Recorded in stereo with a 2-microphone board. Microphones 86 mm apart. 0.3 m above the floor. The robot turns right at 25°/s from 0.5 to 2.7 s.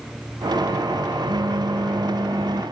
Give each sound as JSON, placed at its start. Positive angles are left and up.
{"t": 1.3, "sound": "a phone buzzing", "azimuth_deg": -70}